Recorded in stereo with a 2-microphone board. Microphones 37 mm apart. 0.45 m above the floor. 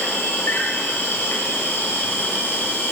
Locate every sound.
0.0 s an insect: 75° left (ahead or behind), 4 m